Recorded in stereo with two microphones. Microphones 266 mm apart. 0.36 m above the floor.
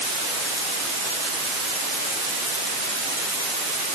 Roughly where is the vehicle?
I don't hear a vehicle.